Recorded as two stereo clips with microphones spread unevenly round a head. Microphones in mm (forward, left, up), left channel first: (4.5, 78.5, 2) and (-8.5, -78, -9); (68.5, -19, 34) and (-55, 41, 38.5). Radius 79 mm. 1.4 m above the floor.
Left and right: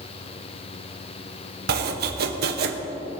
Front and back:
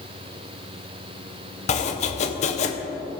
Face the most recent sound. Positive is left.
turn(degrees=-65)